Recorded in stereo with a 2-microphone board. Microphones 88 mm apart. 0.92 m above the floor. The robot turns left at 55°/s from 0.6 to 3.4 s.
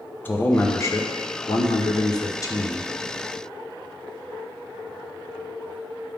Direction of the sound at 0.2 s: 150° left.